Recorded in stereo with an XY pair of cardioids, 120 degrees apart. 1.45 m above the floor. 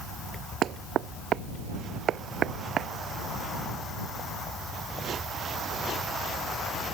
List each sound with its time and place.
0.6 s knocking: 55° right